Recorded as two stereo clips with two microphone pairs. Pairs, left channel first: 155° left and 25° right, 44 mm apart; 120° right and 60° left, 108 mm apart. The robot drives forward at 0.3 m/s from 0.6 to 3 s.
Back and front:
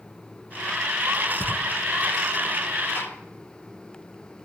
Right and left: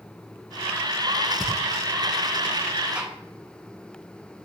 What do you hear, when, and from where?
1.4 s footsteps: 165° left, 4 m; by 1.6 s 170° left, 4 m
3.0 s a gunshot: 140° left, 3 m